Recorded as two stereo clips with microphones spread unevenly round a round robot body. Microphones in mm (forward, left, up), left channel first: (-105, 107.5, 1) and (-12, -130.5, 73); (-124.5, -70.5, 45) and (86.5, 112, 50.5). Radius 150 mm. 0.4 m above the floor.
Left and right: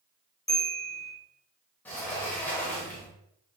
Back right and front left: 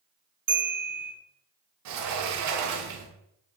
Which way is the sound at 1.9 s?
40° left.